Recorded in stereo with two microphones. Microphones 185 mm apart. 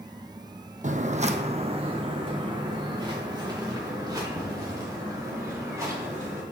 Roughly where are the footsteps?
Right.